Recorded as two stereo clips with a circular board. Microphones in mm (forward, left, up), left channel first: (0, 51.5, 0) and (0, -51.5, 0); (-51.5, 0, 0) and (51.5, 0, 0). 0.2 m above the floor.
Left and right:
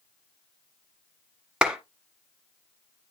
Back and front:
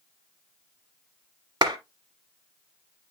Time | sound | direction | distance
1.6 | a clap | 10° right | 1.4 m